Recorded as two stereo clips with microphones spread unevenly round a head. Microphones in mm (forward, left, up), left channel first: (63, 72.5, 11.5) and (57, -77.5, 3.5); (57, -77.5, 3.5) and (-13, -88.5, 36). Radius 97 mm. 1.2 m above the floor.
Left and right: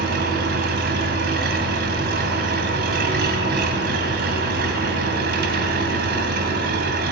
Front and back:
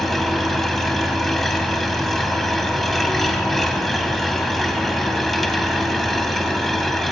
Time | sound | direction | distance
0.0 | an engine running | 90° right | 2.5 m